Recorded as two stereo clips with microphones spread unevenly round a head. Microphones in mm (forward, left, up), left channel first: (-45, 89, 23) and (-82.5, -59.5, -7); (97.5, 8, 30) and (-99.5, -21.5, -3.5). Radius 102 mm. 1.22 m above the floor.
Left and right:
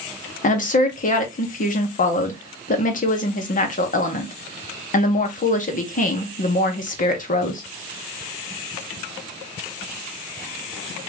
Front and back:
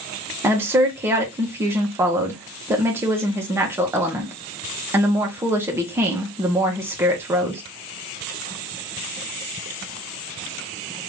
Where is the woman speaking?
115° left, 1.5 m.